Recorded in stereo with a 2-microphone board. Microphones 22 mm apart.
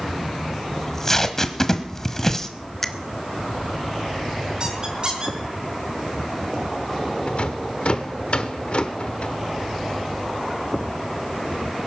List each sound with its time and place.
0.8 s tape being pulled: 20° left (ahead or behind), 1.2 m
2.8 s a finger snap: 20° left (ahead or behind), 1.0 m
4.6 s a squeak: 40° right (ahead or behind), 3.5 m
7.3 s a rattle: 55° left (ahead or behind), 1.2 m